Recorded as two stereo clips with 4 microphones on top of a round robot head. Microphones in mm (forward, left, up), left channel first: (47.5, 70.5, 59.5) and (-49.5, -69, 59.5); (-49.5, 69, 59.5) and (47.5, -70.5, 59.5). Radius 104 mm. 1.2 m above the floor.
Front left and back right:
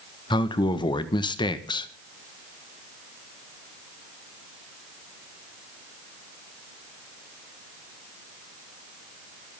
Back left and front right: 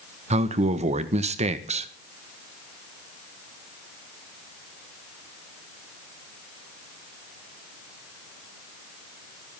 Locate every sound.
0.3 s a man speaking: 5° right, 1.5 m